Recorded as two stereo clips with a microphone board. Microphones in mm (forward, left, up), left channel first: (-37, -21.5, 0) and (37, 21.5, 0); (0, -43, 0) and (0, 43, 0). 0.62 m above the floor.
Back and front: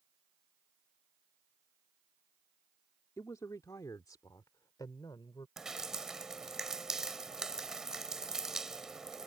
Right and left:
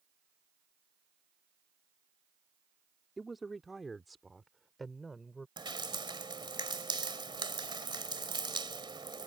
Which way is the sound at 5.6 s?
115° left.